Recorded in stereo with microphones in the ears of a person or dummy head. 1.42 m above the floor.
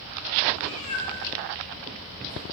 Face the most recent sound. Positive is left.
turn(degrees=65)  # may be behind; listen again after turning